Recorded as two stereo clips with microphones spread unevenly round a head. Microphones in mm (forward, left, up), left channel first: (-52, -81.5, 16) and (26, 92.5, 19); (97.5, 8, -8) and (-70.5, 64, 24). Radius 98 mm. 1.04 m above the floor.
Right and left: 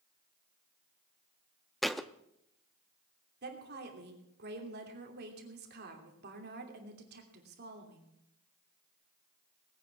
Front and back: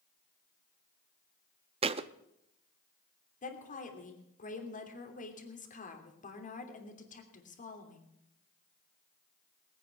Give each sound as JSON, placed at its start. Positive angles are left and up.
{"t": 1.8, "sound": "a thud", "azimuth_deg": 155, "distance_m": 0.5}
{"t": 3.4, "sound": "a woman speaking", "azimuth_deg": 25, "distance_m": 3.0}